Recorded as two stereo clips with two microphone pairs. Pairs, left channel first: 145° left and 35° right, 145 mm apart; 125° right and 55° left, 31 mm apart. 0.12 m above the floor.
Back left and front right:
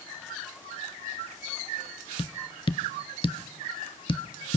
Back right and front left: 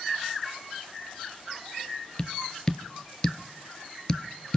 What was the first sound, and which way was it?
Tapping, straight behind.